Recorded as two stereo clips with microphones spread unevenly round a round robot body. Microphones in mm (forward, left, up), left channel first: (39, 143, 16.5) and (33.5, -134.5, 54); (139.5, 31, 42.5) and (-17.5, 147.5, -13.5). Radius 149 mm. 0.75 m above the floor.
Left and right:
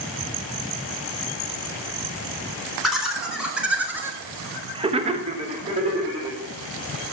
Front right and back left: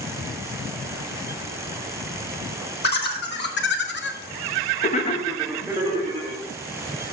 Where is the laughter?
Straight ahead, 3 m; by 6.4 s 170° right, 2 m.